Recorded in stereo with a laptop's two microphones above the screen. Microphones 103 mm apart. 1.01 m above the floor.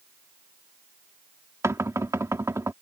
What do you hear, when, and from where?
1.6 s knocking: 30° right (ahead or behind)